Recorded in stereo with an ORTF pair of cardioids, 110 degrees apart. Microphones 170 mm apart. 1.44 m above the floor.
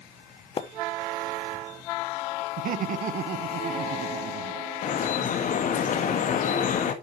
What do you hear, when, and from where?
0.6 s a splash: 35° left, 0.8 m
2.6 s laughter: 55° right, 1.0 m
4.8 s dripping: 55° left, 1.5 m